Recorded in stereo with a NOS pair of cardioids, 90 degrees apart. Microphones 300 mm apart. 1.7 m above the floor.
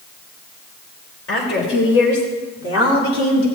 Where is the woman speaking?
45° left, 5.5 m; by 3.5 s 70° left, 4 m.